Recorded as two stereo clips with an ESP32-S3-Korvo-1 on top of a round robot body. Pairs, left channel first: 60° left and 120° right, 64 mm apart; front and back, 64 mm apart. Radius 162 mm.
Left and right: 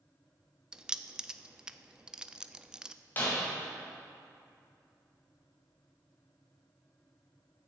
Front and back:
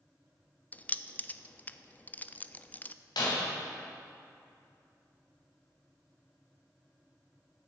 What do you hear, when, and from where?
0.7 s keys jangling: 50° right, 0.5 m
3.2 s breaking glass: 5° right, 2.5 m